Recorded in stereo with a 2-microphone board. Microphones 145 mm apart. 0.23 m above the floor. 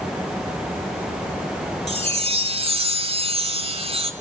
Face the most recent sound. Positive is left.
turn(degrees=-45)  # may be behind; listen again after turning